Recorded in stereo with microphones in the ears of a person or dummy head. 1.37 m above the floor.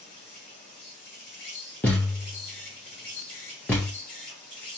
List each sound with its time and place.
0.0 s an insect: 60° left (ahead or behind), 2.5 m
1.8 s a thud: 10° left (ahead or behind), 0.6 m